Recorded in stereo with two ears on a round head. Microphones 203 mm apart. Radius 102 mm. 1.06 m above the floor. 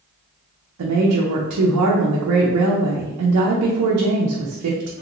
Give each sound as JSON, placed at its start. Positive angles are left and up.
{"t": 0.8, "sound": "a woman speaking", "side_deg": -75, "distance_m": 0.5}